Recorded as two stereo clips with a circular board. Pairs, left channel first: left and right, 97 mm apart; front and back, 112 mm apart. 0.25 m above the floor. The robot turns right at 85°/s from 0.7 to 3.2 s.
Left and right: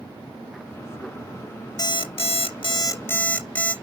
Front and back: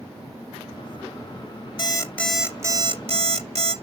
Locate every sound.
1.8 s an alarm clock: 45° left, 1.8 m; by 3.7 s 165° left, 1.8 m